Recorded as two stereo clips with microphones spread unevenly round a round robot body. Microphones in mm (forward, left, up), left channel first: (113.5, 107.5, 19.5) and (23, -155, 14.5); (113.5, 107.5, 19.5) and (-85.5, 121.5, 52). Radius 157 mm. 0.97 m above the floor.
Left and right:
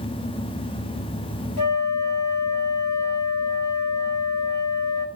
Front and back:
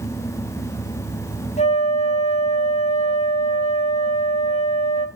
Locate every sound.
1.6 s a flute: 50° left, 1.7 m